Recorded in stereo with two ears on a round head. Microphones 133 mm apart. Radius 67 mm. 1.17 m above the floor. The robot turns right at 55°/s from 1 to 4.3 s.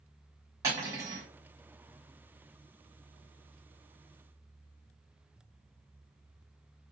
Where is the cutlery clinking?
25° right (ahead or behind), 1.2 m; by 1.3 s 40° right (ahead or behind), 1.2 m.